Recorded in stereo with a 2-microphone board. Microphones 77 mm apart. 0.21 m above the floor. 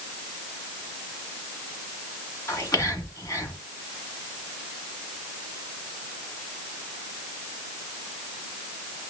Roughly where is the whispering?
Left.